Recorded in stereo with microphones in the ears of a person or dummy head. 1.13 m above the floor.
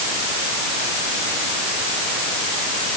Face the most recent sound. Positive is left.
No sound to turn to.